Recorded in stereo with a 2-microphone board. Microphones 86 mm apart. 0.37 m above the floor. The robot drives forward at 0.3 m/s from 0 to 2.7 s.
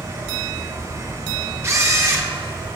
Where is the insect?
55° right (ahead or behind), 2 m; by 2.8 s 75° right (ahead or behind), 1.7 m.